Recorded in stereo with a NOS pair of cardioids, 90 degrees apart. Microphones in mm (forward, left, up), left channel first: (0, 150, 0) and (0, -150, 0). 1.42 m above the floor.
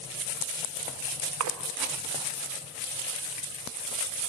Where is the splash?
60° right, 2.0 m.